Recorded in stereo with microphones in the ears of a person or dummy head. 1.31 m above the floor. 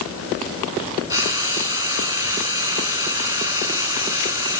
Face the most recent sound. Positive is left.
turn(degrees=-15)  # may be behind; listen again after turning